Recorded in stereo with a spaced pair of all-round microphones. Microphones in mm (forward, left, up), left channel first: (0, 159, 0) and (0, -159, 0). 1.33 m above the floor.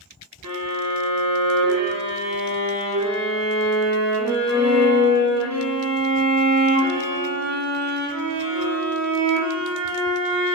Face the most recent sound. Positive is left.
turn(degrees=-55)  # may be behind; listen again after turning